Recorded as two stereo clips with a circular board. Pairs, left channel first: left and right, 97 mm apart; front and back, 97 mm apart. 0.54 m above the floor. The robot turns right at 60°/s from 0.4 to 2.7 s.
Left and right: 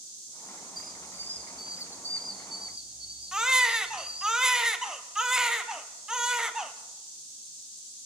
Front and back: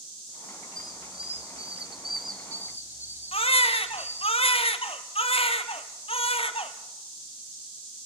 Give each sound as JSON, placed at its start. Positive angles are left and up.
{"t": 0.8, "sound": "a squeak", "azimuth_deg": 130, "distance_m": 1.5}
{"t": 3.3, "sound": "a baby crying", "azimuth_deg": -5, "distance_m": 1.3}